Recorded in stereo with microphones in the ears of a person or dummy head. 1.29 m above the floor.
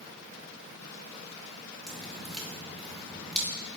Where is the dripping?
5° right (ahead or behind), 2 m.